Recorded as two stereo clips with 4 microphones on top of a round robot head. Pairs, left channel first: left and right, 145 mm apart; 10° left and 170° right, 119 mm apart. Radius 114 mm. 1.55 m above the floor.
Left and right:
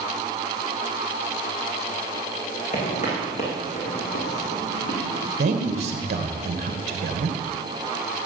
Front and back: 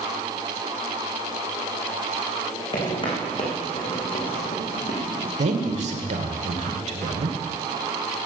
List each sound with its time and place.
2.7 s footsteps: 55° left, 5.5 m; by 5.3 s 50° left, 4 m
5.4 s a man speaking: 135° right, 2 m